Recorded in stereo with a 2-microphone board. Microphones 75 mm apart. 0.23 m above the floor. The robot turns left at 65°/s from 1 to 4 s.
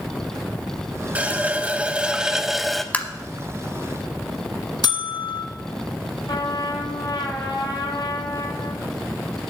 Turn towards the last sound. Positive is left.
turn(degrees=80)